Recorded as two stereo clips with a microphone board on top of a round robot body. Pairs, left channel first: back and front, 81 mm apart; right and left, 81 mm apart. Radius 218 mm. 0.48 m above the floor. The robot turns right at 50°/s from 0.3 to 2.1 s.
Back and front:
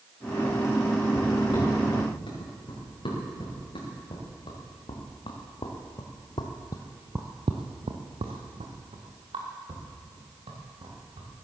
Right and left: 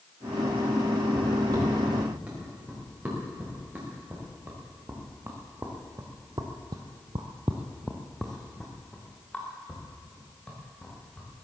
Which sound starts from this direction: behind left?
Footsteps, at 1.1 s.